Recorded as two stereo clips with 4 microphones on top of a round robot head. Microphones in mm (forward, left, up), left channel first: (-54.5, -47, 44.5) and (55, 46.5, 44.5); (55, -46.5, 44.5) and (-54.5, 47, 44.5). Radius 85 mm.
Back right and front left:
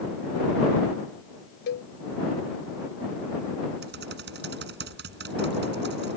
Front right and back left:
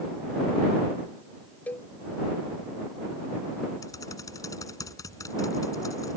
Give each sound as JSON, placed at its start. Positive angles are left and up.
{"t": 1.7, "sound": "a cowbell", "azimuth_deg": -120}
{"t": 3.8, "sound": "typing on a keyboard", "azimuth_deg": 30}